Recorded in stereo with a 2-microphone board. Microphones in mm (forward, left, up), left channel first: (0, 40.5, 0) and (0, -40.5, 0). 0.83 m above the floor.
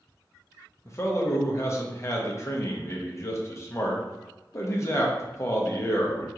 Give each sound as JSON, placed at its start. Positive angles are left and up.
{"t": 0.8, "sound": "a man speaking", "side_deg": 35, "distance_m": 0.7}